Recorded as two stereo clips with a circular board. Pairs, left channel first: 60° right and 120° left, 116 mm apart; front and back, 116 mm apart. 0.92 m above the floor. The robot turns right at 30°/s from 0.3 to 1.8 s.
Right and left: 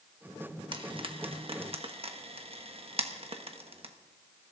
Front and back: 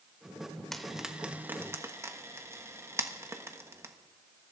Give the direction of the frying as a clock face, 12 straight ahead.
9 o'clock.